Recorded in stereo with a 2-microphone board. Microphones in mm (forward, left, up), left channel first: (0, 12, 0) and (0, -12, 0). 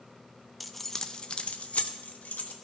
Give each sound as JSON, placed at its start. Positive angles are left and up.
{"t": 0.6, "sound": "keys jangling", "side_deg": -5, "distance_m": 0.6}